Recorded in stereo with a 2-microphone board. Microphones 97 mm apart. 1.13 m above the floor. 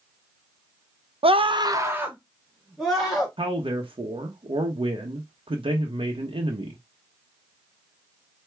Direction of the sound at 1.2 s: 85° right.